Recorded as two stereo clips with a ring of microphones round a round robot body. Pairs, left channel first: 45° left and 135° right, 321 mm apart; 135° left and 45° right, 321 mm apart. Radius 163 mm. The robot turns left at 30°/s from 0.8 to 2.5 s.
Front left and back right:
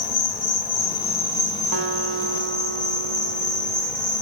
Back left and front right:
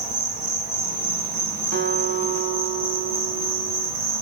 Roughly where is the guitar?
Right.